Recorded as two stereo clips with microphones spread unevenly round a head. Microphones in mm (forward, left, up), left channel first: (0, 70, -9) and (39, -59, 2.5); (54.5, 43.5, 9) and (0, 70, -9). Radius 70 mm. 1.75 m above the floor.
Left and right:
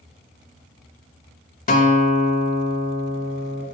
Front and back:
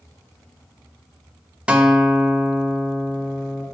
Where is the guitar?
75° left, 2.5 m.